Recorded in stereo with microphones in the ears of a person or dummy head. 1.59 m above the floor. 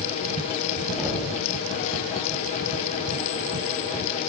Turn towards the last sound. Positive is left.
turn(degrees=5)  # may be behind; listen again after turning